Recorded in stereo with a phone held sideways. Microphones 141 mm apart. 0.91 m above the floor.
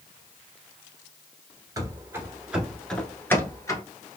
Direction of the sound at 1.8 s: 25° right (ahead or behind).